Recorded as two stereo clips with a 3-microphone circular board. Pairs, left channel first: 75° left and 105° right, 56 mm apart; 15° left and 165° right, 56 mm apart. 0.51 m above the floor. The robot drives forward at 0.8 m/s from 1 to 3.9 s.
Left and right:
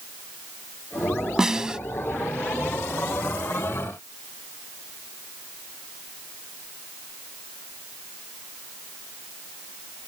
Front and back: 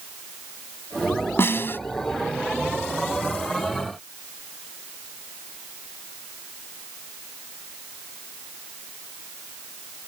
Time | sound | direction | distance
1.4 | a snare drum | 25° right | ?